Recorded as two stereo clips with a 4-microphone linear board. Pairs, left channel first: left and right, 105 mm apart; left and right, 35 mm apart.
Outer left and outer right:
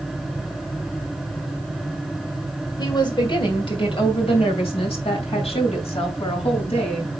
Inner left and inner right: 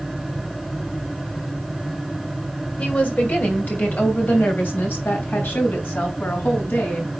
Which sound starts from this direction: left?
A woman speaking, at 2.8 s.